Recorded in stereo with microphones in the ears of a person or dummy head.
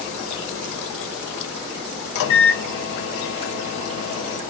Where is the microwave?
70° left (ahead or behind), 1.0 m.